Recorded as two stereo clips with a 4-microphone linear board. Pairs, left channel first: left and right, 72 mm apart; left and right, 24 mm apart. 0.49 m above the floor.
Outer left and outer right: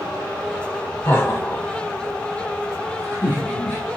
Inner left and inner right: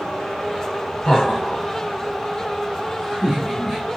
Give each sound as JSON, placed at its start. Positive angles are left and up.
{"t": 1.1, "sound": "laughter", "side_deg": 40, "distance_m": 1.8}